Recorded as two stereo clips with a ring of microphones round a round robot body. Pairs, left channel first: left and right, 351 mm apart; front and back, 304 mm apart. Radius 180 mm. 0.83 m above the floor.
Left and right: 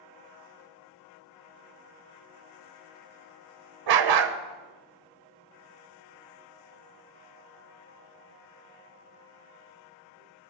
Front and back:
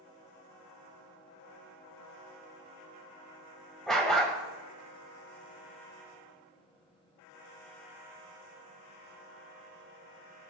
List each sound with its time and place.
3.9 s a dog barking: 90° right, 0.8 m